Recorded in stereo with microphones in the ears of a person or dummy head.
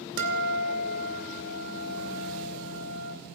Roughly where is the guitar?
Right.